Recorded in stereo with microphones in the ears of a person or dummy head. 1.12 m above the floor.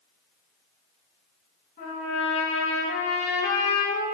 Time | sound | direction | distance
1.8 | a trumpet | 50° left (ahead or behind) | 1.7 m